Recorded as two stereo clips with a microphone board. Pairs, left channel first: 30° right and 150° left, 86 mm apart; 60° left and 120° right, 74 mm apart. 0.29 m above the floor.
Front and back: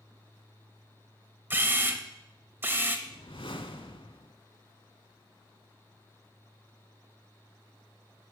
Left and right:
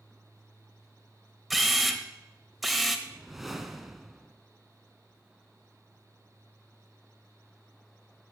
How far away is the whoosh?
About 0.5 m.